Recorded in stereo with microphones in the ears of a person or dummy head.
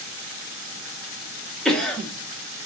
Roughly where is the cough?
Centre.